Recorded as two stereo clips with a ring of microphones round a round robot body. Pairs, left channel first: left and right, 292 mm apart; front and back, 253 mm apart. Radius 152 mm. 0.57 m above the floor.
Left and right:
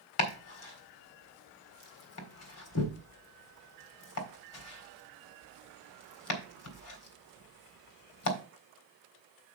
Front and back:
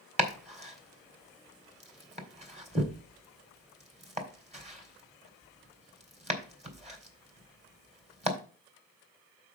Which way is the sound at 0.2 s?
120° left.